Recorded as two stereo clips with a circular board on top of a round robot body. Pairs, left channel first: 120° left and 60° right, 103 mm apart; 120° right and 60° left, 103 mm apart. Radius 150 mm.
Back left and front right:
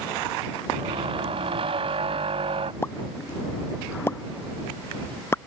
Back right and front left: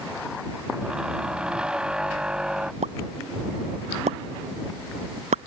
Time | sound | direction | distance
0.7 | a squeak | 25° right | ?
2.8 | a pop | 50° left | ?